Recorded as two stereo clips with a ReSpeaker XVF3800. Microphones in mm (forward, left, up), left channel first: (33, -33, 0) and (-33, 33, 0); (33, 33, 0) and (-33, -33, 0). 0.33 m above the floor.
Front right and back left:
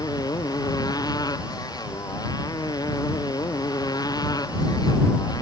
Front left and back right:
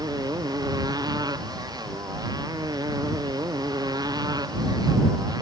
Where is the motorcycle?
90° right.